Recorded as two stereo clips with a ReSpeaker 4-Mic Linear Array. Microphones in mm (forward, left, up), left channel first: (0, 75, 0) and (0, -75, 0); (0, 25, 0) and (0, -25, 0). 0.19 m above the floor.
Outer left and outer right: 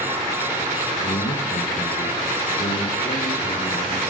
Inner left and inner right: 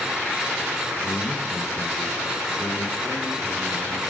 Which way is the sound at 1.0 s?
70° left (ahead or behind).